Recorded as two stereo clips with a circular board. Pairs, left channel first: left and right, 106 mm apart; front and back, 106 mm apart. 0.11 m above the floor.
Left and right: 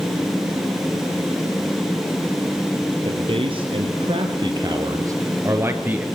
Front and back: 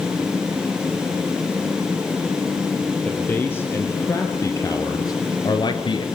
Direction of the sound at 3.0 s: 70° right.